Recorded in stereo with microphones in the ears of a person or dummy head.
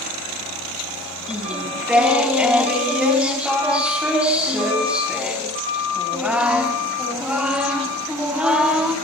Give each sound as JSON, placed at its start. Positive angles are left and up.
{"t": 1.3, "sound": "singing", "side_deg": 0, "distance_m": 4.5}